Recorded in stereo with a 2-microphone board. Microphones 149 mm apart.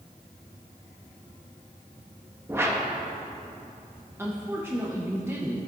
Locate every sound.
2.5 s a whoosh: 15° right (ahead or behind), 1.0 m
4.2 s a woman speaking: 15° right (ahead or behind), 0.8 m